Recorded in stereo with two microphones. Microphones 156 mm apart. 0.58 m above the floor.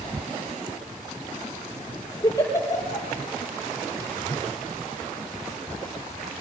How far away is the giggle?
About 5 m.